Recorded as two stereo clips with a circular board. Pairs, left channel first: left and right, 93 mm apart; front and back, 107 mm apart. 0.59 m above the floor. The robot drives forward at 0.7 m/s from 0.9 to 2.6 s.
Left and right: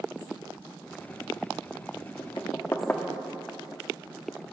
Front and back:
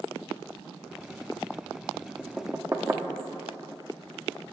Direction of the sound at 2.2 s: 80° left.